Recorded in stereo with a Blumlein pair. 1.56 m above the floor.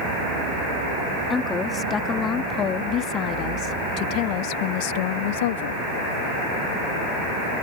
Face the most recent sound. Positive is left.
turn(degrees=55)